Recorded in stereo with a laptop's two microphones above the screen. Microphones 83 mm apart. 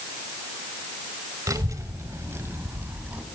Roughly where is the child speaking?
Right.